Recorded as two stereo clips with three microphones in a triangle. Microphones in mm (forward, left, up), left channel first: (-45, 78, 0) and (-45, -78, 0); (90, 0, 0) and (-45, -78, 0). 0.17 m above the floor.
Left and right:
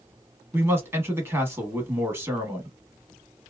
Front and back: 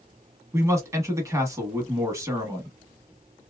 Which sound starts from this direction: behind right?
A man speaking, at 0.5 s.